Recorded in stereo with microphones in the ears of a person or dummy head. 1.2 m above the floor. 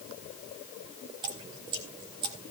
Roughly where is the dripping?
Right.